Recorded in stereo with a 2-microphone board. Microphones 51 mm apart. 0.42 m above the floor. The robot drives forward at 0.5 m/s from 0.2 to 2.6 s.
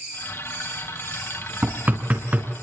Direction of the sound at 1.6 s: 35° right (ahead or behind).